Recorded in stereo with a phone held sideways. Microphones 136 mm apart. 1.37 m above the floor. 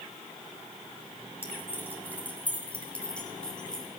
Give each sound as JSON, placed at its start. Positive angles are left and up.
{"t": 1.4, "sound": "keys jangling", "side_deg": 15, "distance_m": 6.5}